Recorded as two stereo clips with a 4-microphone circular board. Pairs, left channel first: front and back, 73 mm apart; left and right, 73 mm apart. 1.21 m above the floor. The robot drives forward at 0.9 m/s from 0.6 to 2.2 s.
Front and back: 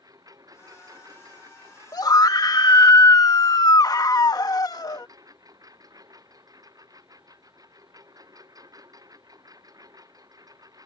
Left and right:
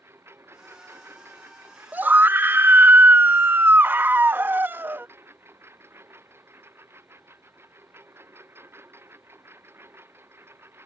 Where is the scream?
25° right; by 5.1 s 30° right.